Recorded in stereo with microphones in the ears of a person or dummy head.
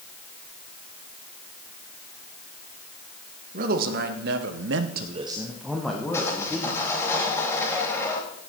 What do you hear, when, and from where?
3.5 s a man speaking: 50° right (ahead or behind), 1.7 m; by 6.8 s 20° left (ahead or behind), 2 m
6.1 s sawing: 15° left (ahead or behind), 3.5 m